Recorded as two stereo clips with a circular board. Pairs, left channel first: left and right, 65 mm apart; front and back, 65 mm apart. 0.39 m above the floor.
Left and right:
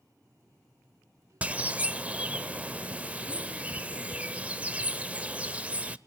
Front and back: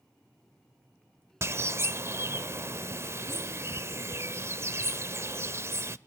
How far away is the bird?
About 0.7 m.